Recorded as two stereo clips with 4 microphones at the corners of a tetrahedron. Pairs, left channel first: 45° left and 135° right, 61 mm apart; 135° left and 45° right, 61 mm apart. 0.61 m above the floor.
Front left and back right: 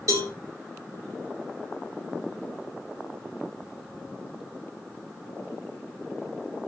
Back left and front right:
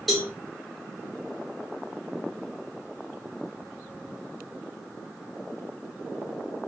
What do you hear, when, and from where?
0.1 s a cowbell: 135° right, 1.3 m